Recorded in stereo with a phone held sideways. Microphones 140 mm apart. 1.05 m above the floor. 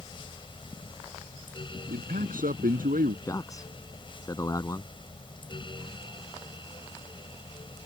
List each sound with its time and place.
0.0 s a fan: 40° left (ahead or behind)
1.9 s a man speaking: 90° right
3.2 s a man speaking: 25° left (ahead or behind)